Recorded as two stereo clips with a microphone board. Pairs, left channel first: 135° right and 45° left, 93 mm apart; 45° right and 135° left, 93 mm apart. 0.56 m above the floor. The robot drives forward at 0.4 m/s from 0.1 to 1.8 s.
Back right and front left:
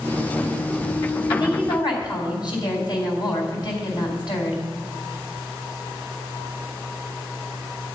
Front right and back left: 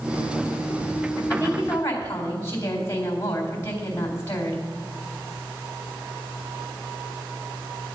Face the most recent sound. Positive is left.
turn(degrees=-105)